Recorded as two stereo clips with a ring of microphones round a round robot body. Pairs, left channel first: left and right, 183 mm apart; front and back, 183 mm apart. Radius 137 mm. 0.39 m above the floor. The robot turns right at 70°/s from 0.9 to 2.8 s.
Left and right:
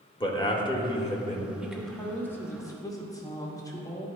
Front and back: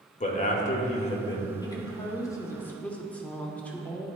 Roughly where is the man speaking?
Ahead left.